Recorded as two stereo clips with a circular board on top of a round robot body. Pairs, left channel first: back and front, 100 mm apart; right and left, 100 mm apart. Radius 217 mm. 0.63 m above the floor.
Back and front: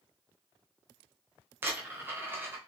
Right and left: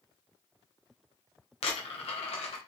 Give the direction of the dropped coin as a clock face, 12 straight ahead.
2 o'clock.